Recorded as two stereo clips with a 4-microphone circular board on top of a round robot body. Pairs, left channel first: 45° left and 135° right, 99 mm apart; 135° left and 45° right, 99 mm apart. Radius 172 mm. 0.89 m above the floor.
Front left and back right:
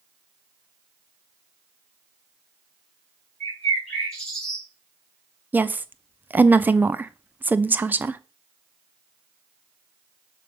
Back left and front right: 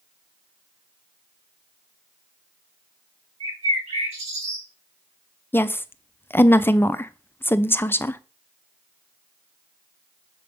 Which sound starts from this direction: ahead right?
A bird, at 3.4 s.